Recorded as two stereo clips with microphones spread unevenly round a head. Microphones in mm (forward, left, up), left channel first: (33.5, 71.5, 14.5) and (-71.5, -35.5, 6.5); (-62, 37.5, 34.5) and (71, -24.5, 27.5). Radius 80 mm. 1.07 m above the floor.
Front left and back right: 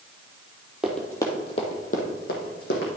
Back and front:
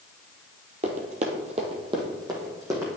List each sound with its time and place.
0.8 s running footsteps: 45° right, 1.3 m; by 2.9 s 45° left, 2.5 m